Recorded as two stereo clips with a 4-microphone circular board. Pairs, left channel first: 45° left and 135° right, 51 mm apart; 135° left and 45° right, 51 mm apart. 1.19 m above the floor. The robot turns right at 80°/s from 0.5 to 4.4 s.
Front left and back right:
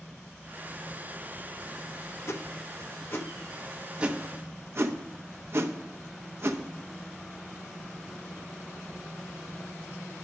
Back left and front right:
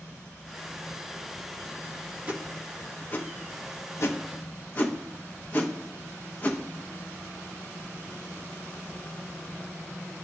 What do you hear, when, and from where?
2.3 s a whoosh: 15° left, 0.8 m; by 6.6 s 175° right, 0.8 m